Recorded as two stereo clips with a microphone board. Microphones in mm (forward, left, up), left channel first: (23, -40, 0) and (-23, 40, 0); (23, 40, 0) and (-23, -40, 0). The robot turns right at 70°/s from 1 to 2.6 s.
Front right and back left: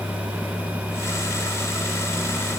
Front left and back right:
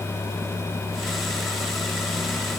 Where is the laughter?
I don't hear laughter.